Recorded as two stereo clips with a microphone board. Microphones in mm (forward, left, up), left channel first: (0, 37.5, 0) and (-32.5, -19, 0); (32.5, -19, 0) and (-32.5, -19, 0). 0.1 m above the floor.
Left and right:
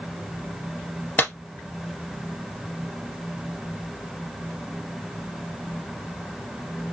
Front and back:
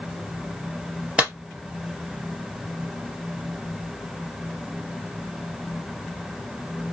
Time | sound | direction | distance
1.2 | a clap | 115° left | 2.0 m